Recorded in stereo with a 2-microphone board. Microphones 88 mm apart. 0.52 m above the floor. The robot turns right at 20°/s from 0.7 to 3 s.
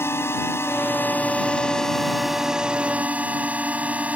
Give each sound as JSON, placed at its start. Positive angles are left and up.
{"t": 0.0, "sound": "a drone", "azimuth_deg": 150}